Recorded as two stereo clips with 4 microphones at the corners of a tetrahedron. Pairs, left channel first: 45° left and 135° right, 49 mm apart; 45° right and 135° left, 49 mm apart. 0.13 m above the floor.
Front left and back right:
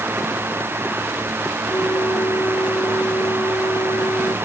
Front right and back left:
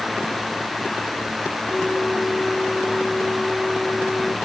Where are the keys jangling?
No keys jangling in this recording.